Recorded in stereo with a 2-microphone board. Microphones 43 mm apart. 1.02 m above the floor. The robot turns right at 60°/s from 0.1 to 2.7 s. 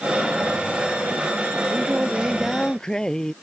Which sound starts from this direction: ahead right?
Singing, at 1.7 s.